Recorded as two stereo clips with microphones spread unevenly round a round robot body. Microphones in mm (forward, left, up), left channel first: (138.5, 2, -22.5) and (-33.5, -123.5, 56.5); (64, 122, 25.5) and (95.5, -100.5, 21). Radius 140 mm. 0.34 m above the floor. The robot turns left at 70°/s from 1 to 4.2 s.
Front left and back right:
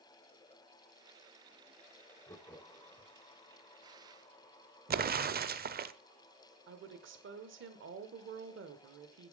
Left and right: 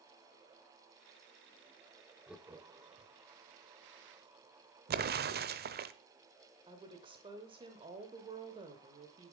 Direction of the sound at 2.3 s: 5° left.